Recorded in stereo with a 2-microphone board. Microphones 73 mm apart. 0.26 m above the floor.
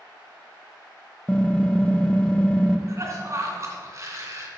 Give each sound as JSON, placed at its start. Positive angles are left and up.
{"t": 1.3, "sound": "typing on a keyboard", "side_deg": 10, "distance_m": 0.5}
{"t": 2.9, "sound": "a cough", "side_deg": -40, "distance_m": 2.5}